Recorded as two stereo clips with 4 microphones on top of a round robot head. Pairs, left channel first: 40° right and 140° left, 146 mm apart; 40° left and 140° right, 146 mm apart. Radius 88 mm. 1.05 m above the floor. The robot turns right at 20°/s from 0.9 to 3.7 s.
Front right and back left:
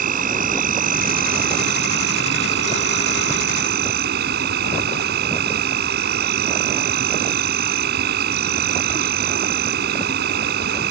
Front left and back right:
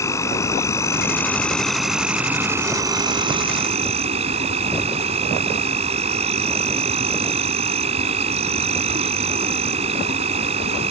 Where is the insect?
110° left; by 10.9 s 165° left.